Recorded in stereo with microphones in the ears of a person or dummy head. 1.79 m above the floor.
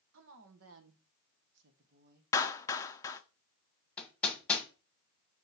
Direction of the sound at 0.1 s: 75° right (ahead or behind).